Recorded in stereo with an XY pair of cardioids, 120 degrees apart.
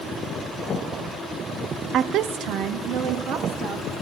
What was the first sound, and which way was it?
A woman speaking, 60° right.